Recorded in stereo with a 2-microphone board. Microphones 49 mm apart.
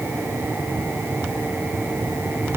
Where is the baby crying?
I don't hear a baby crying.